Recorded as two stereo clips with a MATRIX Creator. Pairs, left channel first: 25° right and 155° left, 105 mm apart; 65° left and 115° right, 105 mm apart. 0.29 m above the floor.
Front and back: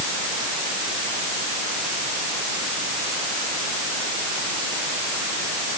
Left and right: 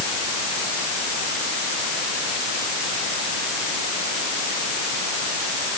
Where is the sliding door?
I don't hear a sliding door.